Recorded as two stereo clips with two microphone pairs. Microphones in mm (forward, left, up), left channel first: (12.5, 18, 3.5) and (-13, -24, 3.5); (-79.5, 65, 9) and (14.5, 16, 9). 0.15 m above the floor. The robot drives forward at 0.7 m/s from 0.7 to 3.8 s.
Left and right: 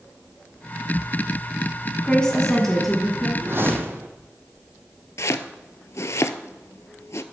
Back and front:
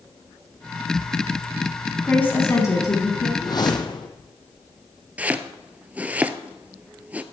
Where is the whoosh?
160° right, 1.0 m; by 4.1 s 165° right, 1.2 m.